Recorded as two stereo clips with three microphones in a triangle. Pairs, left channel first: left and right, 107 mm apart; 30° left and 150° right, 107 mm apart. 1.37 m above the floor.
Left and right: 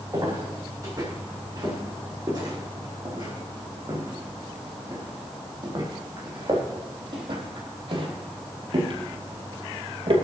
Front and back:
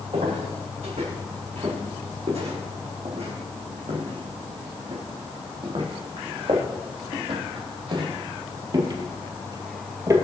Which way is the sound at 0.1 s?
145° right.